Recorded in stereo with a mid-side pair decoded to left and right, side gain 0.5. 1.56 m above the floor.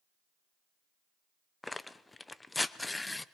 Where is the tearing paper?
15° left, 0.8 m.